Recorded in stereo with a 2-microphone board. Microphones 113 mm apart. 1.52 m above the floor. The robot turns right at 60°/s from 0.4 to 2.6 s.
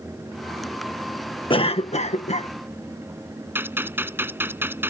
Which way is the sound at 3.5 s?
20° right (ahead or behind).